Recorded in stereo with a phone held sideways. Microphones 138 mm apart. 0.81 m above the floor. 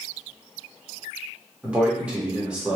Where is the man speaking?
10° right (ahead or behind), 0.9 m.